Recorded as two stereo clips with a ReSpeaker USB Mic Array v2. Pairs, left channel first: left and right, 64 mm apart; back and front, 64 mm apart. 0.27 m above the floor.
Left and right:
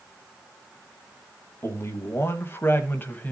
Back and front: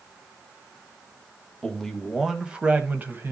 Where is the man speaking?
105° left, 1.5 m; by 3.3 s 40° left, 1.6 m.